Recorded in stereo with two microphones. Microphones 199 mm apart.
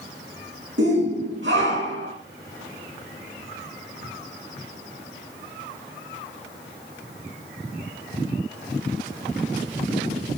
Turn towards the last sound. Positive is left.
turn(degrees=-70)  # may be behind; listen again after turning